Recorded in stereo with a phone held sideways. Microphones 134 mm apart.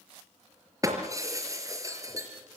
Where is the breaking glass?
25° right (ahead or behind), 4.5 m.